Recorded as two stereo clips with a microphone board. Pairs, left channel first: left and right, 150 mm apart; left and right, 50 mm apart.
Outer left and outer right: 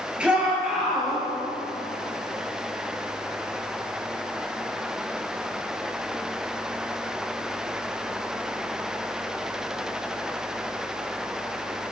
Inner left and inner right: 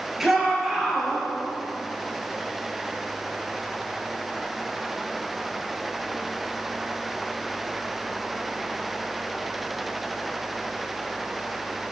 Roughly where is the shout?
Centre.